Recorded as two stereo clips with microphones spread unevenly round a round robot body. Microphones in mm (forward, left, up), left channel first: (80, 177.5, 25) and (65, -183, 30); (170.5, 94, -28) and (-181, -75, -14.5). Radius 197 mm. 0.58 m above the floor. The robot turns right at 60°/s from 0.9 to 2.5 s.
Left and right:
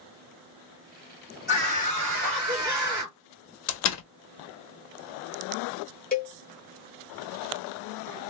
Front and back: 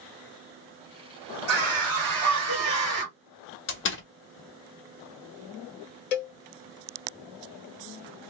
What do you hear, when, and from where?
1.5 s a scream: 175° right, 1.8 m; by 3.2 s 115° right, 1.8 m
3.7 s a door slam: 70° left, 0.7 m
6.1 s a cowbell: 20° left, 0.8 m